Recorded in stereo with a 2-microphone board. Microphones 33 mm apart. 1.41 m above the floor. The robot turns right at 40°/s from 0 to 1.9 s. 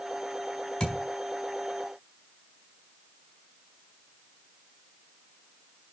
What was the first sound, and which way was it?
A thud, 20° left (ahead or behind).